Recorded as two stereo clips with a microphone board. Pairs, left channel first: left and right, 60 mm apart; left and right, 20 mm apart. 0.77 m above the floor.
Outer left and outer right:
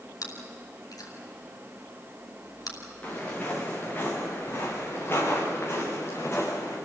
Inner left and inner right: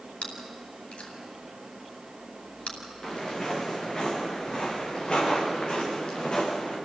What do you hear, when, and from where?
0.2 s chewing: 80° left, 5.5 m
3.0 s footsteps: 25° left (ahead or behind), 7 m; by 6.8 s 45° left (ahead or behind), 9 m